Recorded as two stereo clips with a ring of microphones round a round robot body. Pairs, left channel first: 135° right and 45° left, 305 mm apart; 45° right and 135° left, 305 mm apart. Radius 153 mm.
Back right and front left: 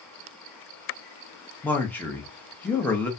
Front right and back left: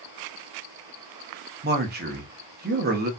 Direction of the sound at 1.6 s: 145° left.